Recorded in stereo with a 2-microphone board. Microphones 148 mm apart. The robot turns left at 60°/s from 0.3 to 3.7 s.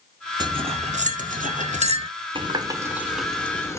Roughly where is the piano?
I don't hear a piano.